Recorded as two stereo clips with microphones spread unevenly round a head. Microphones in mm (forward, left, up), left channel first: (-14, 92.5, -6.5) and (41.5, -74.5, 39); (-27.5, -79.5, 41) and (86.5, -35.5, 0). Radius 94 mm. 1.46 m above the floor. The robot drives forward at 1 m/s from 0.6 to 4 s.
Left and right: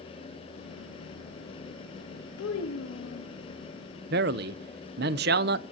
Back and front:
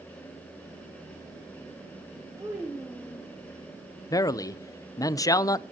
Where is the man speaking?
100° right, 0.6 m.